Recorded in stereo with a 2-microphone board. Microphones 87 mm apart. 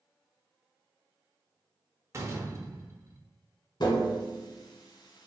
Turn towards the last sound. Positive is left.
turn(degrees=60)  # may be behind; listen again after turning